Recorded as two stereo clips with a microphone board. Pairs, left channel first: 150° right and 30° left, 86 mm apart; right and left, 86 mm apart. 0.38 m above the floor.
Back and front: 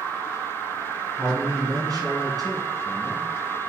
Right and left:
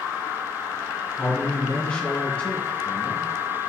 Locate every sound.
1.2 s a man speaking: 15° right, 3 m